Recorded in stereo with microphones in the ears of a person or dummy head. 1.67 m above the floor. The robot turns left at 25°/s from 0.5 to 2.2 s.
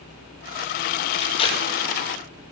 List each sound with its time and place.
1.2 s tape being pulled: 35° left (ahead or behind), 2.0 m; by 2.0 s 15° left (ahead or behind), 2.0 m